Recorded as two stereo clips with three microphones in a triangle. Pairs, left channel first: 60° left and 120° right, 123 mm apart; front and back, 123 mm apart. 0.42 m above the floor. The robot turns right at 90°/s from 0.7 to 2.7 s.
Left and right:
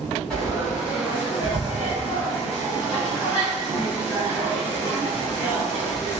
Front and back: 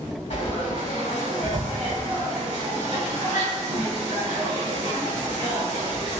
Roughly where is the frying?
Ahead right.